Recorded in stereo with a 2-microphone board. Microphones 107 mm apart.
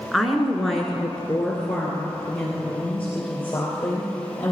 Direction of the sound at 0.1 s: Centre (ahead or behind).